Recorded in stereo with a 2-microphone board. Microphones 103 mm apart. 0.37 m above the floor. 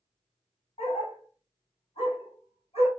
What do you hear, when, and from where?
0.8 s a dog barking: 85° left, 1.6 m